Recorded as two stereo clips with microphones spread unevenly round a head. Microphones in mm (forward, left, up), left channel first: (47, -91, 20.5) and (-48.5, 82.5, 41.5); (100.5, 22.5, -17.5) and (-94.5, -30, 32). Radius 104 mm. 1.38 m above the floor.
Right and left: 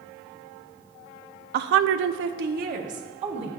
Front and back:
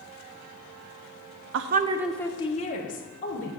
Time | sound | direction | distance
1.5 | a woman speaking | 160° left | 0.6 m